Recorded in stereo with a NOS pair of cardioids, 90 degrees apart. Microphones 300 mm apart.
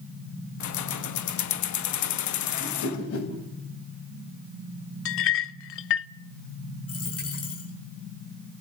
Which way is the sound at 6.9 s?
55° left.